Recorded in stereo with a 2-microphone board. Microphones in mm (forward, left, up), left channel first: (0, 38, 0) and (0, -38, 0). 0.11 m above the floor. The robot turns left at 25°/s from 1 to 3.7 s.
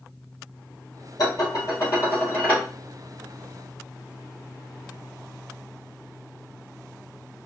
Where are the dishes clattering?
60° left, 2.0 m; by 2.6 s 20° left, 2.0 m.